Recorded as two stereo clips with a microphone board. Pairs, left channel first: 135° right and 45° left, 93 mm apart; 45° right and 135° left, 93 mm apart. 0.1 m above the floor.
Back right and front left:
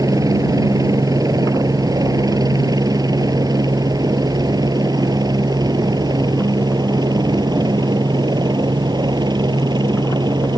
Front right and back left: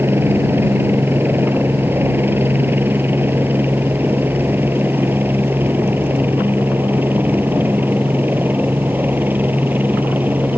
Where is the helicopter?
80° left; by 10.6 s 70° left.